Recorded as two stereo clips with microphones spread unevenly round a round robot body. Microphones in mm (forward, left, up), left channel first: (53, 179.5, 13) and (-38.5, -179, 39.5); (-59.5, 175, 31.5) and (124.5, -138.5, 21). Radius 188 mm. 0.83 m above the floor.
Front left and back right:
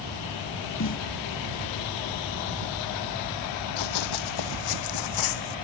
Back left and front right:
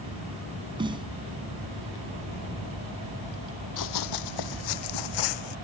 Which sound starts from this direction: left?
Running footsteps, at 3.8 s.